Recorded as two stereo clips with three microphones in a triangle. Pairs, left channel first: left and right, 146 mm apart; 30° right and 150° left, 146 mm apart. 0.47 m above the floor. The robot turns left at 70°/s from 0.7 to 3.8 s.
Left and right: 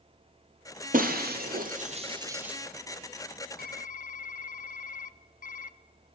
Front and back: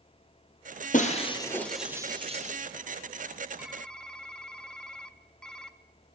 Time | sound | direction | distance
0.9 | breaking glass | 60° right | 1.6 m
3.6 | typing on a keyboard | 70° left | 0.5 m